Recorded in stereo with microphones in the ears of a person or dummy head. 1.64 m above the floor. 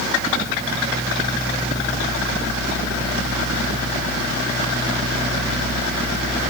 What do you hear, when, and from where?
Only background noise.